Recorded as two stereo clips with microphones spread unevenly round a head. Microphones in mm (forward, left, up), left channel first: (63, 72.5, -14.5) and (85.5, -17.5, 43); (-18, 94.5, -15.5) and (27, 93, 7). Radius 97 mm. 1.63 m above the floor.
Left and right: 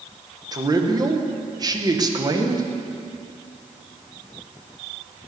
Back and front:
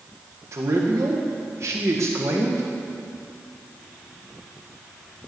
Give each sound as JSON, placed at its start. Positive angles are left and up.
{"t": 0.5, "sound": "a man speaking", "azimuth_deg": -30, "distance_m": 1.6}